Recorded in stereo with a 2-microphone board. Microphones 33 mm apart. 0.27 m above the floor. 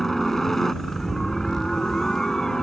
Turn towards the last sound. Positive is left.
turn(degrees=20)  # may be behind; listen again after turning